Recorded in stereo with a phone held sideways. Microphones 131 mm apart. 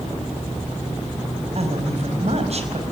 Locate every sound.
1.6 s a woman speaking: 55° right (ahead or behind), 5 m